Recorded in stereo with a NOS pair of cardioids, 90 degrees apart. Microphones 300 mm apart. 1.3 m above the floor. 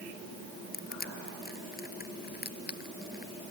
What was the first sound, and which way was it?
Crushing, 30° left.